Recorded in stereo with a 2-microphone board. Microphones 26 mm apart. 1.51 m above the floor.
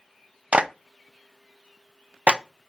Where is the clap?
55° right (ahead or behind), 0.5 m.